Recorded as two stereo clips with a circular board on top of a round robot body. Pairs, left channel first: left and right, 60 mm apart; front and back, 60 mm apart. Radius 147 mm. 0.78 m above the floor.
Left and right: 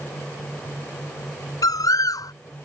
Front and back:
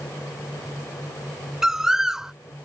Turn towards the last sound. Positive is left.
turn(degrees=95)